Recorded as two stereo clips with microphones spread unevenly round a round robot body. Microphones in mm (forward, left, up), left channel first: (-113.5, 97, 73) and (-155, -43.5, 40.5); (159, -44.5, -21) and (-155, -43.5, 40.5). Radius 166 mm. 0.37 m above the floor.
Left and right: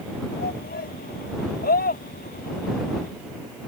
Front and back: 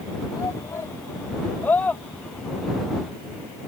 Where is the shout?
80° left; by 3.1 s 90° left.